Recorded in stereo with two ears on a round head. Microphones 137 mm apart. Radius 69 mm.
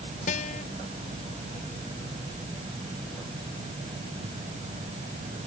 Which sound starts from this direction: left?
A guitar, at 0.3 s.